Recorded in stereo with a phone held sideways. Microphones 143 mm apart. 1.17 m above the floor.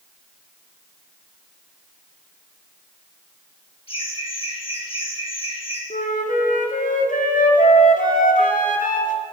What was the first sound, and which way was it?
Laughter, 45° left (ahead or behind).